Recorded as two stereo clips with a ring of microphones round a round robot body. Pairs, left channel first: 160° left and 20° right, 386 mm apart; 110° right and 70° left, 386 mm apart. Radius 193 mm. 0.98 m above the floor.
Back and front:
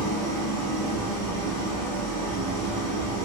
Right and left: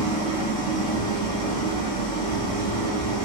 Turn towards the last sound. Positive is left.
turn(degrees=170)